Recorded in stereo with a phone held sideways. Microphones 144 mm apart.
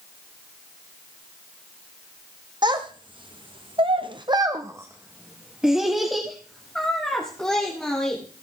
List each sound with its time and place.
2.6 s a child speaking: 30° right (ahead or behind), 1.3 m; by 8.2 s 5° left (ahead or behind), 3 m